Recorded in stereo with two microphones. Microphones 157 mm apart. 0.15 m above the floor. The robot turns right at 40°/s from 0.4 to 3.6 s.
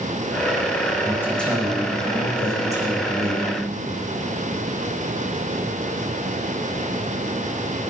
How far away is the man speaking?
About 8 m.